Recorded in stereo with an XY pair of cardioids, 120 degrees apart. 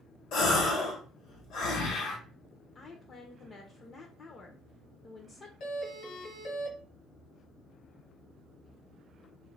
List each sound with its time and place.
0.3 s a gasp: 70° left, 1.0 m
2.8 s a woman speaking: 40° left, 0.5 m
5.6 s a doorbell: 70° left, 1.2 m